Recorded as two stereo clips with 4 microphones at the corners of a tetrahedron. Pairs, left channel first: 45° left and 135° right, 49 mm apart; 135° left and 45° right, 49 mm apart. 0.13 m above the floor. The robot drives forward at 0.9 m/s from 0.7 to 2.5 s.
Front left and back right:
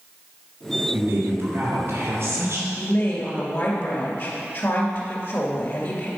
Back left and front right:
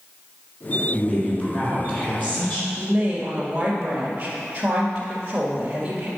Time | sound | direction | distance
0.9 | a woman speaking | 160° right | 3 m
2.8 | a woman speaking | 25° left | 2 m